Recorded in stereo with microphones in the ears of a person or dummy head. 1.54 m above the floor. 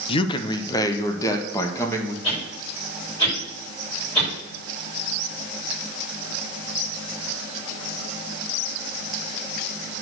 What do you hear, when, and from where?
0.1 s a man speaking: 30° left (ahead or behind), 0.9 m; by 2.1 s 15° left (ahead or behind), 2 m
2.2 s a whoosh: 30° left (ahead or behind), 6 m